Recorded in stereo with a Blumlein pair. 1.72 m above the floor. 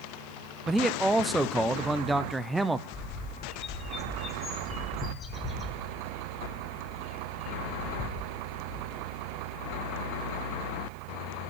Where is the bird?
20° left, 2 m.